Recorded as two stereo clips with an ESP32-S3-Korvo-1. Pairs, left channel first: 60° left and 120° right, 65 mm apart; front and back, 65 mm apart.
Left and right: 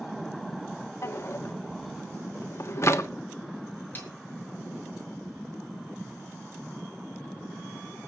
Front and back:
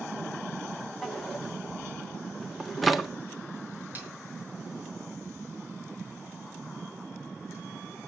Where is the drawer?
90° left, 1.3 m.